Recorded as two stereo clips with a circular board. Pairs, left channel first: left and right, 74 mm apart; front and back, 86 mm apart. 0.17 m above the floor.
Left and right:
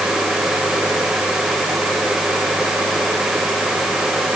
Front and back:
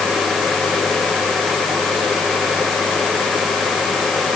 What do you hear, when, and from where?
Only background noise.